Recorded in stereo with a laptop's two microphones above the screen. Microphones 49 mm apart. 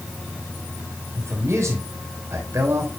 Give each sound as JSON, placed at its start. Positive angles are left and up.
{"t": 1.1, "sound": "a man speaking", "side_deg": -70, "distance_m": 4.5}